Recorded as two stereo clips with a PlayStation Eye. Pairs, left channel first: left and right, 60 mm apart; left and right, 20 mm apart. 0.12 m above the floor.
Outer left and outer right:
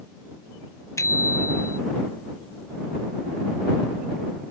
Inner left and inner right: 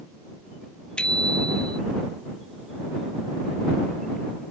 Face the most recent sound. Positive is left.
turn(degrees=55)  # may be behind; listen again after turning